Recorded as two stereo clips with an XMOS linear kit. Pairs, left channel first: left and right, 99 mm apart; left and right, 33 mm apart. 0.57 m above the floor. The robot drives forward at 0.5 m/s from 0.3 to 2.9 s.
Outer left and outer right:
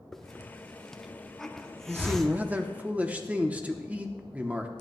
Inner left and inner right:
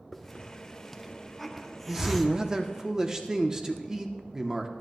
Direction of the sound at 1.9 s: 20° right (ahead or behind).